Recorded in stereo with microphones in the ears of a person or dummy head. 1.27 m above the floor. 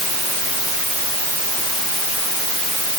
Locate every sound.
Only background noise.